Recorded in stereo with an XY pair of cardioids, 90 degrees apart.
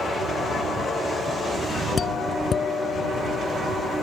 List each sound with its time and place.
2.0 s a doorbell: 50° left